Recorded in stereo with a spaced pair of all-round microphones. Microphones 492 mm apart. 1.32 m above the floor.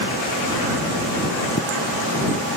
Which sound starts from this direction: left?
A pop, at 1.6 s.